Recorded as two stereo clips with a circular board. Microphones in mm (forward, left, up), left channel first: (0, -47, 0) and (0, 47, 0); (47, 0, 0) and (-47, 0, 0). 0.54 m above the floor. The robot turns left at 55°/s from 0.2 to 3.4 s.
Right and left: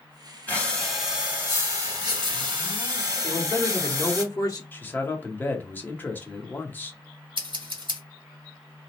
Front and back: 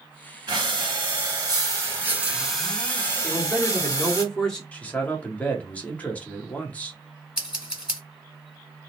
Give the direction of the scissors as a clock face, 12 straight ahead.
9 o'clock.